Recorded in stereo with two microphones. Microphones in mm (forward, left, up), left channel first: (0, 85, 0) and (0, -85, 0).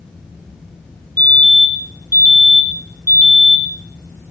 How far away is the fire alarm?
About 8 m.